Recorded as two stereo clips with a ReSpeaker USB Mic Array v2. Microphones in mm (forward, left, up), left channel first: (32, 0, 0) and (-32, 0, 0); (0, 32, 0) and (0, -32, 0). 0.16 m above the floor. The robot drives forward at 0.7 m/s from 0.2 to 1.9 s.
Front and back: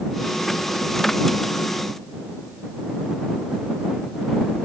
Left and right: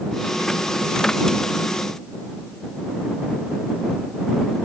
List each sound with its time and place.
Only background noise.